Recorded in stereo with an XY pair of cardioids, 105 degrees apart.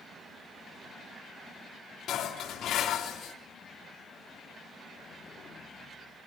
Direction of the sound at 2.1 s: 70° left.